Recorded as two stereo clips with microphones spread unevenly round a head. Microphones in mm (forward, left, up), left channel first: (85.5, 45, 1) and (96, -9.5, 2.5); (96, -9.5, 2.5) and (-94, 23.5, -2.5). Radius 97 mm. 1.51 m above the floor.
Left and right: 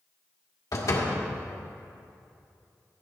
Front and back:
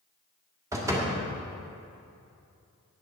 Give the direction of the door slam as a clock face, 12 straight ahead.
9 o'clock.